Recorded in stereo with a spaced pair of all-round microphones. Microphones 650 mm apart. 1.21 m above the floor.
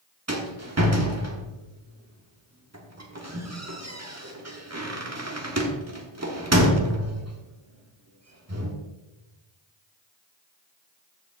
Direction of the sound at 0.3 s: 25° right (ahead or behind).